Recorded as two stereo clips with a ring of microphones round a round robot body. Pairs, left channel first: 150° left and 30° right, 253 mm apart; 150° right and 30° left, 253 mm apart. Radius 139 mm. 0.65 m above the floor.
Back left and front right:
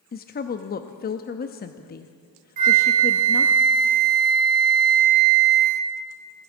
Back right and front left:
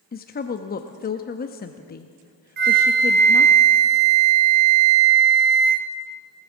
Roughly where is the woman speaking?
Behind.